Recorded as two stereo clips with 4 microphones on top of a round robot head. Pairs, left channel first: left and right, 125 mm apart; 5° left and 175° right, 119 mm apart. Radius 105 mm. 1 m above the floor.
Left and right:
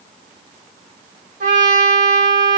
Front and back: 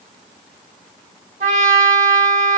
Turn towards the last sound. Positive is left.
turn(degrees=-125)